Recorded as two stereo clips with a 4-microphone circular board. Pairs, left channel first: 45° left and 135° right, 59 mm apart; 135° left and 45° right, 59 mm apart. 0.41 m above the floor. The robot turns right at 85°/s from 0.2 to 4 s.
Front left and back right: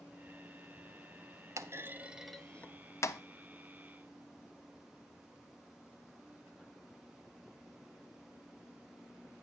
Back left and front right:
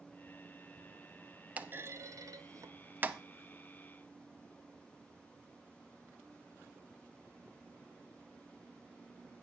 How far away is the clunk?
About 0.6 m.